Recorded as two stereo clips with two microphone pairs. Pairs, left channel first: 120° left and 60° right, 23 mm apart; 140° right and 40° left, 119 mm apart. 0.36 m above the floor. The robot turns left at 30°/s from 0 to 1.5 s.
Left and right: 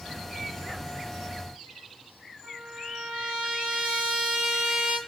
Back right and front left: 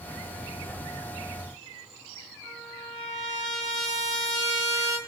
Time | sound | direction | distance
2.4 | a trumpet | 20° right | 8 m